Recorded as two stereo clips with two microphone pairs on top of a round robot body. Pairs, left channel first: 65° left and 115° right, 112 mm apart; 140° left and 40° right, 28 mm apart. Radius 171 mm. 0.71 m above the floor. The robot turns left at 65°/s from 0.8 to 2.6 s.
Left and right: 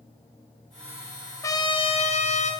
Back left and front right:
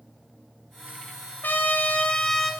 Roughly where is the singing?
I don't hear singing.